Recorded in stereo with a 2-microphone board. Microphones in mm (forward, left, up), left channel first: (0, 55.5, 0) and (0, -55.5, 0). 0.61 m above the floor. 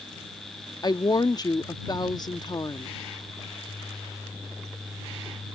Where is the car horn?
No car horn in this recording.